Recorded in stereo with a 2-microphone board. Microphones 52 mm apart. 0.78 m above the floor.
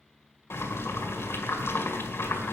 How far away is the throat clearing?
No throat clearing in this recording.